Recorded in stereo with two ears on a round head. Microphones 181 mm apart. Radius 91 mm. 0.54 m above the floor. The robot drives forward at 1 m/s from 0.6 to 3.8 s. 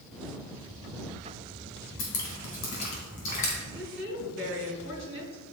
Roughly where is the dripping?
Left.